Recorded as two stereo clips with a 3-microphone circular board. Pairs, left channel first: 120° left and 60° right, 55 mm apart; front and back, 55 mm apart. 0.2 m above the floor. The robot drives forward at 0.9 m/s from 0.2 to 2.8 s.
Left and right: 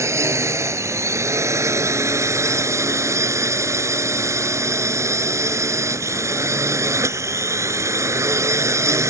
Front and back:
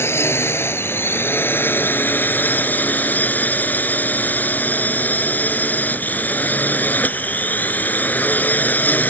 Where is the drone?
40° right; by 9.1 s 55° right.